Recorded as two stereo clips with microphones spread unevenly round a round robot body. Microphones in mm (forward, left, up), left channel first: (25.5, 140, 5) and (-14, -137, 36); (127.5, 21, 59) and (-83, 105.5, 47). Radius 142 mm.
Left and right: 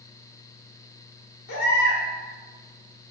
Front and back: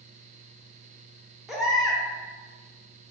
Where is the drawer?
I don't hear a drawer.